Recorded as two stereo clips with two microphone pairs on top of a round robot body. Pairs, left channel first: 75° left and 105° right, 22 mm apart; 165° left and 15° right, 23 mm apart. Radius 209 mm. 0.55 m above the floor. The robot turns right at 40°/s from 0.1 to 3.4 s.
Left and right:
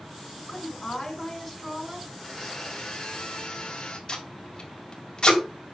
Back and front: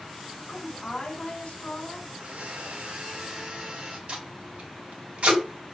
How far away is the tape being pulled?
About 3.5 m.